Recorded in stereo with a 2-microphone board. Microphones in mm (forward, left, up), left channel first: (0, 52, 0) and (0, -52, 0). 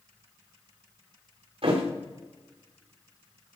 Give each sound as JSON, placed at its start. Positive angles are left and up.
{"t": 1.6, "sound": "a thud", "side_deg": -70, "distance_m": 3.0}